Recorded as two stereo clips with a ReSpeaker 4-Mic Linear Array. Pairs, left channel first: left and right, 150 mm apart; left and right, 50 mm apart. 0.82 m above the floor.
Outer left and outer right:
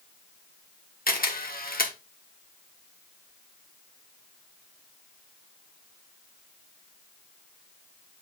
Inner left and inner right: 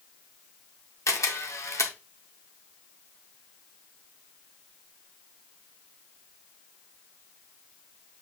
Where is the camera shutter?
80° left, 1.3 m.